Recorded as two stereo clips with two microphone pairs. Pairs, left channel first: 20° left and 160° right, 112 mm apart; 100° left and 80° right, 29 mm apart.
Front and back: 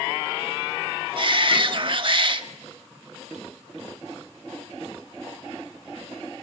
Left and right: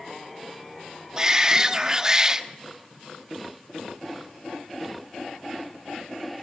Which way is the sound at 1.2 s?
140° right.